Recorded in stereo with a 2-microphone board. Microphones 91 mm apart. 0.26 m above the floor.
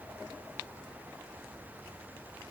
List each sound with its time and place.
Only background noise.